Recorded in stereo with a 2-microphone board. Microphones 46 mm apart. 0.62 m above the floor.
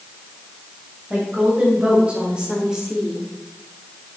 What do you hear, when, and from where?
1.1 s a woman speaking: 30° right (ahead or behind), 3 m; by 3.2 s centre (ahead or behind), 1.3 m